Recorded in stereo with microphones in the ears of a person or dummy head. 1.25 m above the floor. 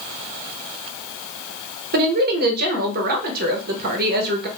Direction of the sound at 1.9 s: 55° right (ahead or behind).